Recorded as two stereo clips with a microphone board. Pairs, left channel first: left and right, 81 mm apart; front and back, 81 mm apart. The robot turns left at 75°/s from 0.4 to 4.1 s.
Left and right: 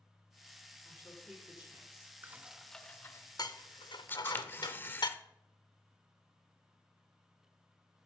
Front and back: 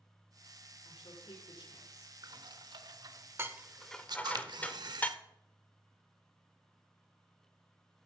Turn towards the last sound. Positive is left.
turn(degrees=155)